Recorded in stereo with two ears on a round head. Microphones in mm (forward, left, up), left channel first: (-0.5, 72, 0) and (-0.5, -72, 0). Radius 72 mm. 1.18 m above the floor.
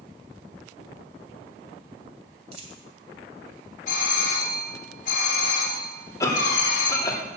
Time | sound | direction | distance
2.5 | a dropped coin | 40° right (ahead or behind) | 2.5 m
3.9 | a doorbell | 50° left (ahead or behind) | 3 m
6.2 | a cough | 20° left (ahead or behind) | 2.5 m